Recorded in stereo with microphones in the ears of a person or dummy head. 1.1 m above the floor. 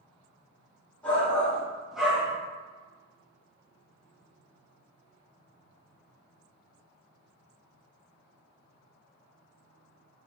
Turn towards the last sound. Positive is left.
turn(degrees=-10)  # may be behind; listen again after turning